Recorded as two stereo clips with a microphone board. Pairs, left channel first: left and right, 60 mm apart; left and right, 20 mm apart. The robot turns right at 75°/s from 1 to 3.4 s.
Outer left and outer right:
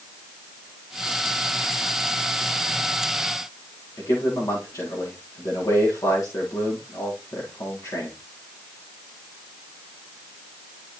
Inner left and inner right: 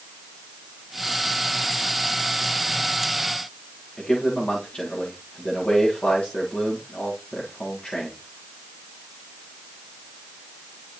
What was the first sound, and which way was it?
A man speaking, 65° left (ahead or behind).